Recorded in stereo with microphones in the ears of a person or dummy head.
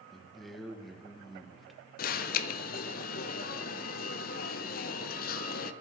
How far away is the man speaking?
About 1.6 m.